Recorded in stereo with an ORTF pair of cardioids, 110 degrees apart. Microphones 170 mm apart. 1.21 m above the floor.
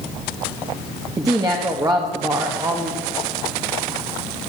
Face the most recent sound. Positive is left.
turn(degrees=-20)